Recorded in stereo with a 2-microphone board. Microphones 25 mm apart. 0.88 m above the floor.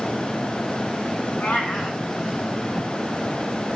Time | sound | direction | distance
1.4 | a cat meowing | 80° left | 5.5 m